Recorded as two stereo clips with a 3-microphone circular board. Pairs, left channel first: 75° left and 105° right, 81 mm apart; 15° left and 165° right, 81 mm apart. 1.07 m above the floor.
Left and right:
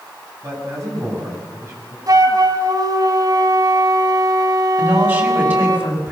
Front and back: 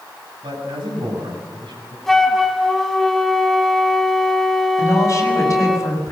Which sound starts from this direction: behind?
A man speaking, at 0.4 s.